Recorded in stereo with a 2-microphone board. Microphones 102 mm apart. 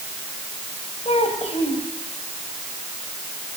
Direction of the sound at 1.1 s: 85° left.